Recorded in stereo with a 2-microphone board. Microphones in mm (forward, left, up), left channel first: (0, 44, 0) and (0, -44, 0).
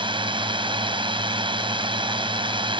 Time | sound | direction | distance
0.0 | a drone | 70° right (ahead or behind) | ?